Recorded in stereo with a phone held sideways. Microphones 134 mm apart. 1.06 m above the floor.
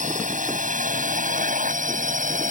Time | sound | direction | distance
0.0 | a drone | 75° right (ahead or behind) | ?